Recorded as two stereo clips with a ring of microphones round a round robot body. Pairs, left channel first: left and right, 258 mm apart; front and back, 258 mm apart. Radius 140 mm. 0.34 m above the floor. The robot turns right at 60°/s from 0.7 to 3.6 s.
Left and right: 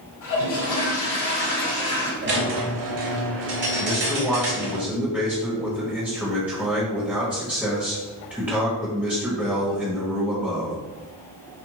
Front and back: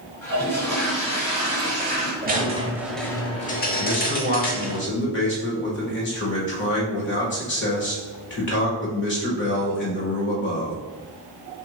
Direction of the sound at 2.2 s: 130° right.